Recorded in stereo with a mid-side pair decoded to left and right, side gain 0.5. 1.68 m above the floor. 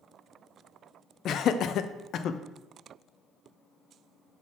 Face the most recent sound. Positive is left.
turn(degrees=60)